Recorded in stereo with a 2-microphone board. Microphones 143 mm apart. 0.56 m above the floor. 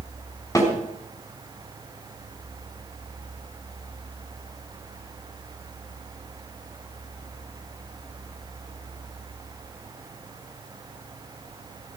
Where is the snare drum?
20° left (ahead or behind), 4 m.